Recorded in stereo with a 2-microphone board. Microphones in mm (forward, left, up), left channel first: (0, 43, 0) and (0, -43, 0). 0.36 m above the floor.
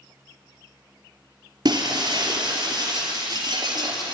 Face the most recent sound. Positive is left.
turn(degrees=-60)  # may be behind; listen again after turning